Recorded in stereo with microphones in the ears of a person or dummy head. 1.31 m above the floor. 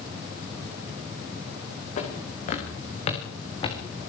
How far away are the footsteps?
About 8.5 m.